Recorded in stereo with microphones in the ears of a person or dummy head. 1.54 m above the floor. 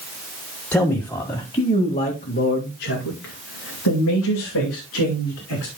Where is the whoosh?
No whoosh in this recording.